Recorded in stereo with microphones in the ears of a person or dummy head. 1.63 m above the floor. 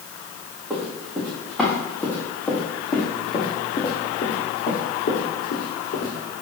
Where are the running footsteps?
15° right (ahead or behind), 3 m; by 6.1 s 45° left (ahead or behind), 3.5 m.